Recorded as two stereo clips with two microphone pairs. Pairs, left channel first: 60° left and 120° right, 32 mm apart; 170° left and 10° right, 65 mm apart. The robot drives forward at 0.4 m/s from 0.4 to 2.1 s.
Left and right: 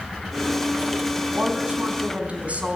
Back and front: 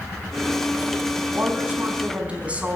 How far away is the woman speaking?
About 4.5 m.